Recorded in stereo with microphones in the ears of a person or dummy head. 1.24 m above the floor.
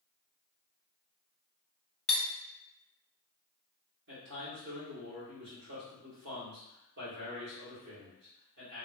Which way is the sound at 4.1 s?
55° right (ahead or behind).